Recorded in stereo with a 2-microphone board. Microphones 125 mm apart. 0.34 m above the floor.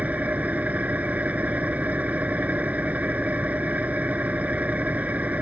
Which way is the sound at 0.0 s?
10° right (ahead or behind).